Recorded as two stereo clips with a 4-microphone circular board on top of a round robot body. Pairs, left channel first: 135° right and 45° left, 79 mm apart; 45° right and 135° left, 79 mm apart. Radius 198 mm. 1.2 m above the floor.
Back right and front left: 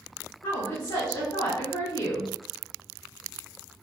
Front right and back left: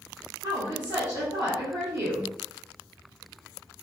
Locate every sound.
0.4 s a woman speaking: 175° right, 1.6 m